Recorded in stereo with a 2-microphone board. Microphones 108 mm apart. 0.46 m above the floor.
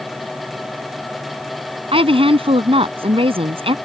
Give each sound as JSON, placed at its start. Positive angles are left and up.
{"t": 1.9, "sound": "a woman speaking", "side_deg": -60}